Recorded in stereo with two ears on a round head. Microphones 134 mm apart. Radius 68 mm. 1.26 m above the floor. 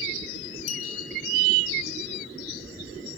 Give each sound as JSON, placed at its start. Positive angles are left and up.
{"t": 0.7, "sound": "a clink", "side_deg": 50, "distance_m": 3.5}